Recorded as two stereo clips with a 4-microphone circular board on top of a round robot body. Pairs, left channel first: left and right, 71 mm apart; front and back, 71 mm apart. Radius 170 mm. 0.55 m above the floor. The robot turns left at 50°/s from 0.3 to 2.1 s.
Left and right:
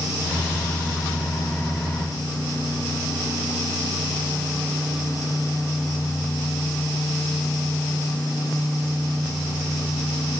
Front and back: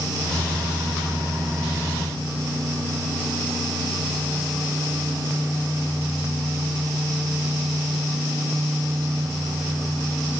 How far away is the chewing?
I don't hear chewing.